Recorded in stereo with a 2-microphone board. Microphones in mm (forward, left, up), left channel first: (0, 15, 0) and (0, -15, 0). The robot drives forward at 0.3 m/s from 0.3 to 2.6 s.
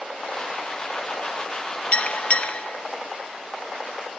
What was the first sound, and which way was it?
A bell, 50° left (ahead or behind).